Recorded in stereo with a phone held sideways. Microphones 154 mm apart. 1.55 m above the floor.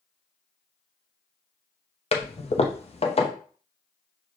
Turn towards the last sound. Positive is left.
turn(degrees=45)  # may be behind; listen again after turning